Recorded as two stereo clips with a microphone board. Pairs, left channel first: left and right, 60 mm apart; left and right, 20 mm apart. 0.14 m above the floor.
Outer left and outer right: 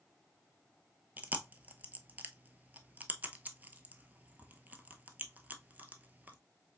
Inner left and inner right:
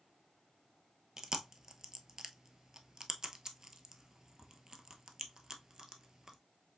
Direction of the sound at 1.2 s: 30° right (ahead or behind).